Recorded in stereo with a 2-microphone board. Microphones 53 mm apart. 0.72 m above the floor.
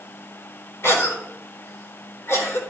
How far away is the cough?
About 4.5 m.